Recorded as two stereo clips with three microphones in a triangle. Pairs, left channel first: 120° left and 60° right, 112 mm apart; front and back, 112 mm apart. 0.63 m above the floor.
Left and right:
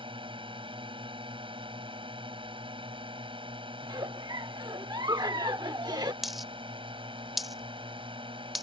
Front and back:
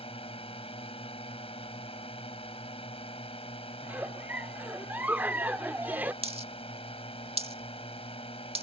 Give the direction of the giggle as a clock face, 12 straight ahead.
4 o'clock.